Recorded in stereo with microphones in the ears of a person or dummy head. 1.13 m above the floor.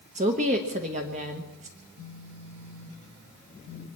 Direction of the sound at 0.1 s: 35° right (ahead or behind).